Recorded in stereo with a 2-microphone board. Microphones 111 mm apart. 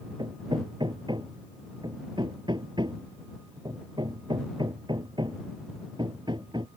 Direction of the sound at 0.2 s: 45° right (ahead or behind).